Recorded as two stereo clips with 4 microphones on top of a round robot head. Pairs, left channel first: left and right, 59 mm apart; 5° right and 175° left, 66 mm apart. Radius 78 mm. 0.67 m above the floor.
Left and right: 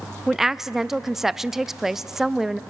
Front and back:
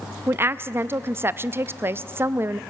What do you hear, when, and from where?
0.3 s a woman speaking: 170° right, 0.5 m